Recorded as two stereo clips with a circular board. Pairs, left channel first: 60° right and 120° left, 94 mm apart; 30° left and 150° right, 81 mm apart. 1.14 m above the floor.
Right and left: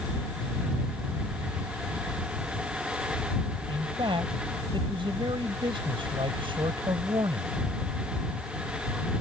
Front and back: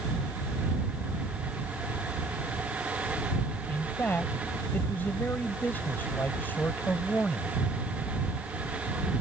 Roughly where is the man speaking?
Left.